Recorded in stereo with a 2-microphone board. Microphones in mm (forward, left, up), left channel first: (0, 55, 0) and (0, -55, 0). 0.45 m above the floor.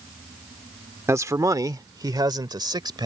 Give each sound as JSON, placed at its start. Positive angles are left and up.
{"t": 1.1, "sound": "a man speaking", "side_deg": -25}